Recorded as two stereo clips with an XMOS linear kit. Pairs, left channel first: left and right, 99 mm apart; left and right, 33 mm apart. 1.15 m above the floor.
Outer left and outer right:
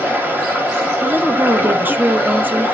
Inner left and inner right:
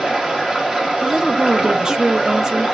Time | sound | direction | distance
0.0 | running water | 20° right (ahead or behind) | 0.9 m
1.0 | a woman speaking | 20° right (ahead or behind) | 0.5 m